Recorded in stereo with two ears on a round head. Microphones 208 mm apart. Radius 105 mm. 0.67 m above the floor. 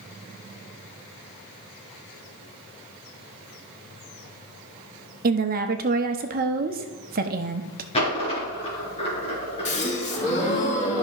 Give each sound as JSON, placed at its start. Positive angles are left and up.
{"t": 5.2, "sound": "a woman speaking", "side_deg": -40, "distance_m": 0.8}
{"t": 7.9, "sound": "a dropped coin", "side_deg": 25, "distance_m": 3.5}
{"t": 9.7, "sound": "a gasp", "side_deg": 30, "distance_m": 1.7}